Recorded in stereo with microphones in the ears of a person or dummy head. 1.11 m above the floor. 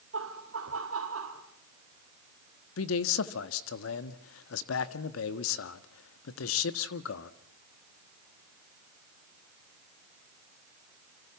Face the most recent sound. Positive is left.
turn(degrees=80)